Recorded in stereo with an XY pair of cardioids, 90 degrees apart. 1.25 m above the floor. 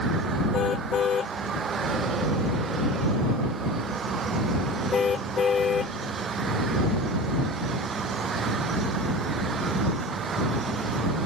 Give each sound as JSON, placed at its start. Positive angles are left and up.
{"t": 0.5, "sound": "a car horn", "azimuth_deg": 60}